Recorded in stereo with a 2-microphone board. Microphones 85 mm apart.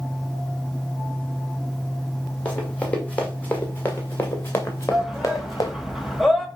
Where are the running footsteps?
15° left (ahead or behind), 3 m; by 5.7 s 40° left (ahead or behind), 1.5 m.